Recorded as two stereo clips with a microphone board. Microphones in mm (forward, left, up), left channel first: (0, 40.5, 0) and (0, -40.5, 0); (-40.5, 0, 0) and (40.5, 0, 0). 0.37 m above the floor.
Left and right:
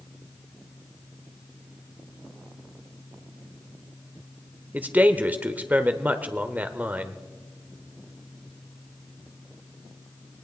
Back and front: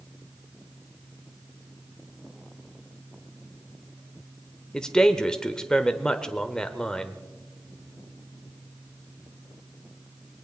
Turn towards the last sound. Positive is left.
turn(degrees=-110)